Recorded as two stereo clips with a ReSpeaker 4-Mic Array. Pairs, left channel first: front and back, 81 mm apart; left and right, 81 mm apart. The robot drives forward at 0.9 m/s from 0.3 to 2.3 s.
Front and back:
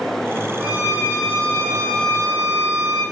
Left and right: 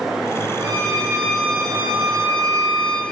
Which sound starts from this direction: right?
A violin, at 0.6 s.